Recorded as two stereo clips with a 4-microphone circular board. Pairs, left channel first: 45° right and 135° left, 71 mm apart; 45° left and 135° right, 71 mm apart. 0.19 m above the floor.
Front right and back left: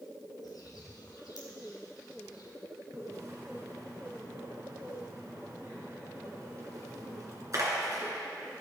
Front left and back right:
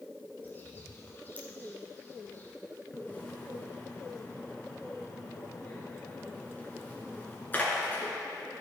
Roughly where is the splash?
Left.